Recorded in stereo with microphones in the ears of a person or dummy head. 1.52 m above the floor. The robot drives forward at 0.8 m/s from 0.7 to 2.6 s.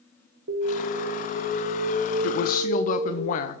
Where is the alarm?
65° right (ahead or behind), 1.7 m; by 3.2 s 40° right (ahead or behind), 2.5 m.